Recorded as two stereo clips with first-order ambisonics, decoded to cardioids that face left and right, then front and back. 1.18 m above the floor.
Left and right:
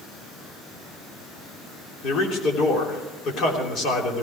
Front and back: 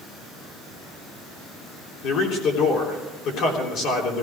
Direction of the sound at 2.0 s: 40° left.